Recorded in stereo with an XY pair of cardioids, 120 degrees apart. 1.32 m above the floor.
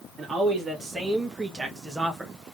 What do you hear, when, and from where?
0.2 s a man speaking: 30° right, 2.0 m; by 2.5 s 5° right, 0.9 m